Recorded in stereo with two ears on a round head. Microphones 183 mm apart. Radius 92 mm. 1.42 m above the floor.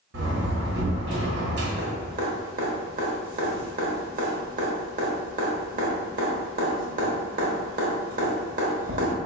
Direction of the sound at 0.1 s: 60° right (ahead or behind).